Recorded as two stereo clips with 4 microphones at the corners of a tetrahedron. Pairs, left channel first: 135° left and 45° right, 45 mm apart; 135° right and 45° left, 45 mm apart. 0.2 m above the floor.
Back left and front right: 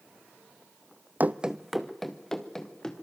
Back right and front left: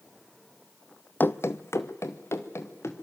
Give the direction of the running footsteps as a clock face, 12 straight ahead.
3 o'clock.